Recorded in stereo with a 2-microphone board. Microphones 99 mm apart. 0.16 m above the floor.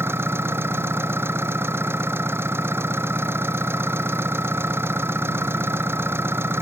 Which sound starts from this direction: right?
An engine running, at 0.0 s.